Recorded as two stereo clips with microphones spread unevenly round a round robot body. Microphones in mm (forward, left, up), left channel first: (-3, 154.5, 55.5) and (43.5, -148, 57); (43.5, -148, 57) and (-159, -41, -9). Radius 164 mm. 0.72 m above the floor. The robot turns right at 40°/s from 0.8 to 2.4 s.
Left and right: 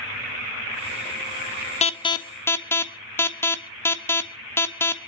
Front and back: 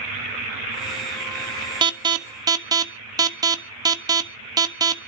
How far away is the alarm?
About 1.4 m.